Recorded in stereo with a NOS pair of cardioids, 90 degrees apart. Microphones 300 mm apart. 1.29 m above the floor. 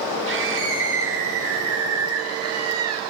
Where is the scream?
45° right, 5 m; by 3.0 s 60° right, 6.5 m.